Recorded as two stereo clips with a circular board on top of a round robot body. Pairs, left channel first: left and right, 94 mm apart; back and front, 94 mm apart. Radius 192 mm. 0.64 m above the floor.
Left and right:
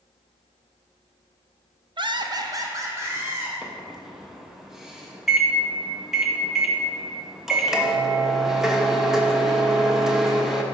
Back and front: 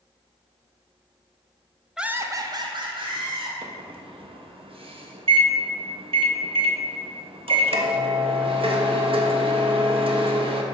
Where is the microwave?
5° right, 1.1 m.